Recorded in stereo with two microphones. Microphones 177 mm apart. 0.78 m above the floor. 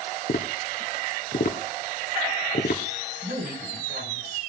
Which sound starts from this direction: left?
Tapping, at 0.3 s.